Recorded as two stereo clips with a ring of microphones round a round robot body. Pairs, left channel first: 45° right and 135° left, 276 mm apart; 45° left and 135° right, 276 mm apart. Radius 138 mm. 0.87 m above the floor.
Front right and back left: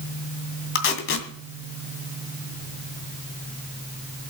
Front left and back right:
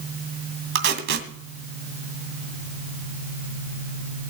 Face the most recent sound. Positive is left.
turn(degrees=-90)